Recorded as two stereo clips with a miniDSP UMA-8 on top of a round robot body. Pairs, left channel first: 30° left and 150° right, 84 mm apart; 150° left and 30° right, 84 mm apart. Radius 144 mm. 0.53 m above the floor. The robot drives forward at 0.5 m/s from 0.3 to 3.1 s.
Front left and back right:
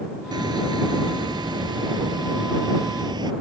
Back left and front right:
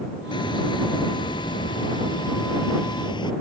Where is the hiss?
175° left.